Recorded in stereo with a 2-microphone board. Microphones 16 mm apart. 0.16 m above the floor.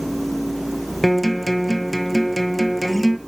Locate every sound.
1.0 s a guitar: centre (ahead or behind), 0.9 m